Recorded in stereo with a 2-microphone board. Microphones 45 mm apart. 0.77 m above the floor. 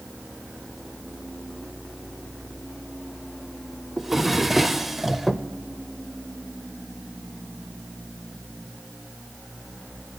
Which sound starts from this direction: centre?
A drawer, at 4.0 s.